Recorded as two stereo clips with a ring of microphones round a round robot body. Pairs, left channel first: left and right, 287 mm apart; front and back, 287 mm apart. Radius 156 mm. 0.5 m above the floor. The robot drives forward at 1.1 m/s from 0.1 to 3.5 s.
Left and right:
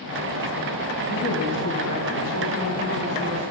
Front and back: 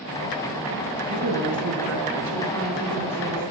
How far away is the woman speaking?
About 4 m.